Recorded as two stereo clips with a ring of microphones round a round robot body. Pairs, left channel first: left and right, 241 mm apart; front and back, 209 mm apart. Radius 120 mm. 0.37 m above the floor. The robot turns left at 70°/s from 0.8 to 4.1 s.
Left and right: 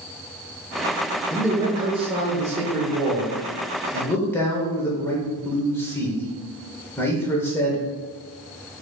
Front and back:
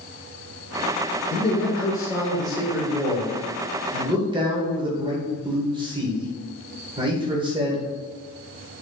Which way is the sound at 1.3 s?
5° right.